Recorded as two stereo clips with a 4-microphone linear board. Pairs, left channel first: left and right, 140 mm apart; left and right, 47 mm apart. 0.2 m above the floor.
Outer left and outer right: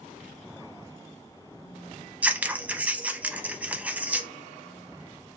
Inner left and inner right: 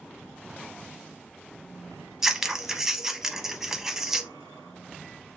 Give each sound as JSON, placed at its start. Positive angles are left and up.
{"t": 2.2, "sound": "scissors", "side_deg": -10, "distance_m": 0.6}